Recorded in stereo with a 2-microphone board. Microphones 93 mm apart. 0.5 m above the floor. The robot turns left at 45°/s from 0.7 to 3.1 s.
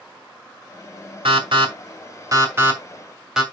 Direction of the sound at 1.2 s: 70° right (ahead or behind).